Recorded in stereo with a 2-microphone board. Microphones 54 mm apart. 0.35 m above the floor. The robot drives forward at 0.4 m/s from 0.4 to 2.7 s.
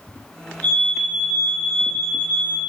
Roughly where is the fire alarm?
Left.